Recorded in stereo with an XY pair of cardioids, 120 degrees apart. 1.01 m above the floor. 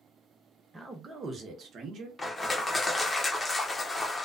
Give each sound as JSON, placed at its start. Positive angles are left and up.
{"t": 0.7, "sound": "a man speaking", "azimuth_deg": -15, "distance_m": 0.9}
{"t": 2.2, "sound": "crushing", "azimuth_deg": 20, "distance_m": 0.6}